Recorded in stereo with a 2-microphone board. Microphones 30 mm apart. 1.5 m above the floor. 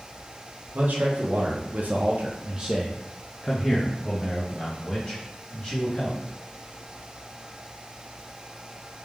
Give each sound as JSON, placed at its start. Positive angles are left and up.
{"t": 0.7, "sound": "a man speaking", "side_deg": -75, "distance_m": 1.1}